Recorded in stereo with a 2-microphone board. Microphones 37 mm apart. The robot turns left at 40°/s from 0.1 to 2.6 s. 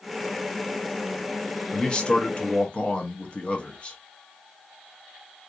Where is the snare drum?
I don't hear a snare drum.